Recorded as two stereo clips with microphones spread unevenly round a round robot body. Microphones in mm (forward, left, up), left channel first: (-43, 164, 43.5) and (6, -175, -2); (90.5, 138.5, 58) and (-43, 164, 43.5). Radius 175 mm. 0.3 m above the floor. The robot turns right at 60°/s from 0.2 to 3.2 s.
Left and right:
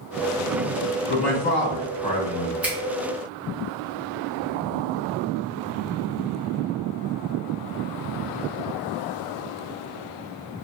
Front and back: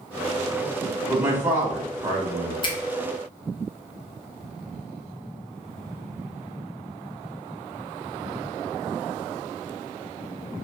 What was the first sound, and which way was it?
A man speaking, 105° left.